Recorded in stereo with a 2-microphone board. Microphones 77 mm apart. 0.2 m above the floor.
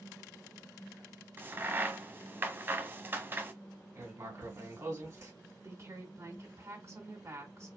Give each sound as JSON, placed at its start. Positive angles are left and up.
{"t": 1.4, "sound": "a crack", "side_deg": -30, "distance_m": 0.6}
{"t": 4.0, "sound": "writing", "side_deg": -40, "distance_m": 1.9}
{"t": 5.6, "sound": "a woman speaking", "side_deg": -40, "distance_m": 1.9}